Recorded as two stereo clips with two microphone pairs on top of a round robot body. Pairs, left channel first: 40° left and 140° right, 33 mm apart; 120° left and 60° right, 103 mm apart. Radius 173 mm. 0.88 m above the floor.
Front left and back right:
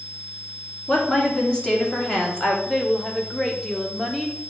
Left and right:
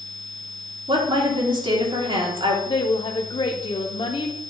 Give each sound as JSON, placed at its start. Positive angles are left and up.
{"t": 0.9, "sound": "a woman speaking", "azimuth_deg": -25, "distance_m": 2.5}
{"t": 2.7, "sound": "a woman speaking", "azimuth_deg": 110, "distance_m": 0.9}